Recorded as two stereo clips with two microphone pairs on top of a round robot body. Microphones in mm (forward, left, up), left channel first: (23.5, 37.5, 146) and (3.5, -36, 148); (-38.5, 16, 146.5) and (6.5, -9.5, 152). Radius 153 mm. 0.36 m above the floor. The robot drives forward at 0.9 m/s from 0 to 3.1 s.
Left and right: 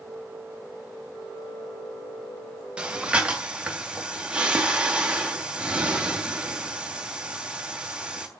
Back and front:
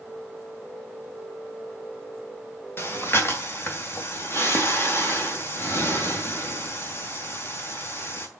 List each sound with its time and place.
2.8 s breathing: straight behind, 2.5 m